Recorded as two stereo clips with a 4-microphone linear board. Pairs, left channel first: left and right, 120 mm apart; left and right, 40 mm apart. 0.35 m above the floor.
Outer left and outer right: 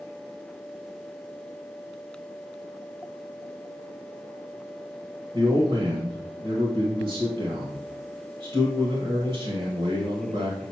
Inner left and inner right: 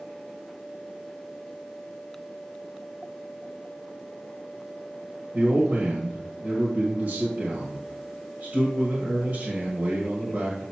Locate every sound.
5.3 s a man speaking: 45° right (ahead or behind), 1.6 m